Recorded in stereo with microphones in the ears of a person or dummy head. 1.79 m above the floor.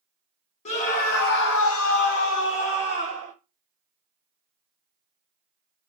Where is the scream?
40° left (ahead or behind), 1.2 m; by 3.3 s 25° left (ahead or behind), 1.5 m.